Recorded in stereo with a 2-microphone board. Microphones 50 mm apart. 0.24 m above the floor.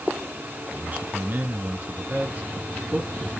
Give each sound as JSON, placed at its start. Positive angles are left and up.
{"t": 0.7, "sound": "a man speaking", "side_deg": -30, "distance_m": 2.5}